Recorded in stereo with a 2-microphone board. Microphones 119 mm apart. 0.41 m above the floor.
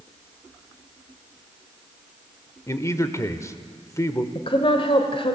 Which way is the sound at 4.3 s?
50° left (ahead or behind).